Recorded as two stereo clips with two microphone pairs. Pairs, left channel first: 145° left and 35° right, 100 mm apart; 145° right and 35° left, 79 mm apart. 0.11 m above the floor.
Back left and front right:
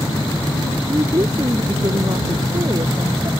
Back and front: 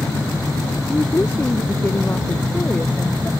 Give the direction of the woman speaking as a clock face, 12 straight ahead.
3 o'clock.